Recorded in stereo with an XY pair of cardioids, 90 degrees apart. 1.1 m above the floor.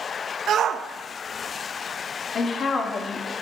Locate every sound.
0.5 s a shout: 65° right, 0.9 m
2.4 s a woman speaking: 60° left, 1.7 m